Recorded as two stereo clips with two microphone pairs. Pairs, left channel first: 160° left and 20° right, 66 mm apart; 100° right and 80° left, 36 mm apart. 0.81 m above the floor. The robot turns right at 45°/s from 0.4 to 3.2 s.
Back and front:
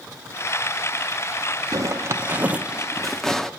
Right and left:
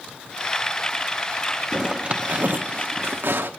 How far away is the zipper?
About 0.9 m.